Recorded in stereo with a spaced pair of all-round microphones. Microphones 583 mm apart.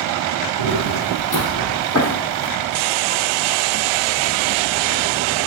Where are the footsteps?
35° left (ahead or behind), 2.5 m; by 2.5 s 20° left (ahead or behind), 1.9 m.